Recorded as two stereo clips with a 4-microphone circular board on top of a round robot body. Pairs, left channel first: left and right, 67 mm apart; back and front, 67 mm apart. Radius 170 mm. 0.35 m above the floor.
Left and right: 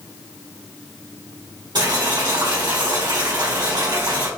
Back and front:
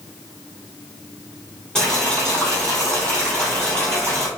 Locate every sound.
1.8 s boiling: 100° right, 2 m